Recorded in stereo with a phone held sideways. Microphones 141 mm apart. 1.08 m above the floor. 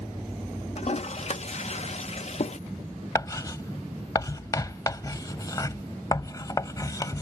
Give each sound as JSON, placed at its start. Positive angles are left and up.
{"t": 0.8, "sound": "a toilet flushing", "side_deg": 50}
{"t": 3.1, "sound": "writing", "side_deg": 25}